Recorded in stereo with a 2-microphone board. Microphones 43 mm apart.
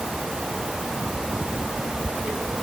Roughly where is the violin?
No violin in this recording.